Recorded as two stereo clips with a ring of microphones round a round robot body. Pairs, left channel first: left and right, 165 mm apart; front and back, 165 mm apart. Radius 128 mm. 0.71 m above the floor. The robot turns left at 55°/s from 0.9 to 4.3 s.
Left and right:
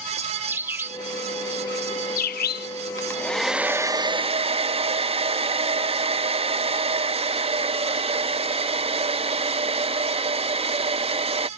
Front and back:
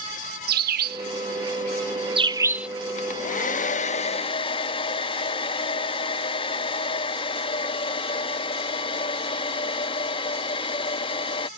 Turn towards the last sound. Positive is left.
turn(degrees=-50)